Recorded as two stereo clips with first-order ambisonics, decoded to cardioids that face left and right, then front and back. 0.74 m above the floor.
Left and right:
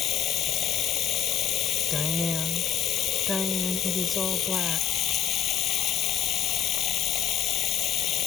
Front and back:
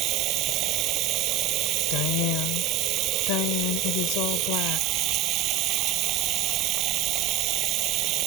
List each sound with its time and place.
0.0 s running water: 140° left
1.9 s a woman speaking: 5° left